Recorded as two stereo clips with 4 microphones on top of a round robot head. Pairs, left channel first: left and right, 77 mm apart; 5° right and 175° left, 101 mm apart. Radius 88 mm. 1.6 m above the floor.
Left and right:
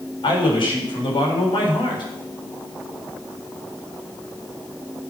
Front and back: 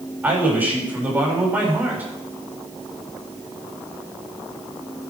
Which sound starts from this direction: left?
A man speaking, at 0.2 s.